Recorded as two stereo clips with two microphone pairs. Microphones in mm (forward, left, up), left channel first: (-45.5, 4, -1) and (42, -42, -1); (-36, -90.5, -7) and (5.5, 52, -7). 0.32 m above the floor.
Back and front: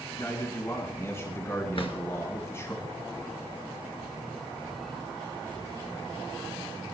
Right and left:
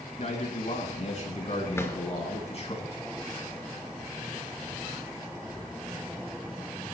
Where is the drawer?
Straight behind, 2.5 m.